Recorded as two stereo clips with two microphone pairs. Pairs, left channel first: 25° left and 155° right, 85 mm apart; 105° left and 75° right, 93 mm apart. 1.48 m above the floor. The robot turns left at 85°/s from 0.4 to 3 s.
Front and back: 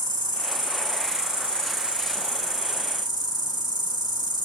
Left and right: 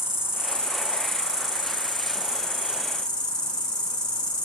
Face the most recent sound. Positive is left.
turn(degrees=-175)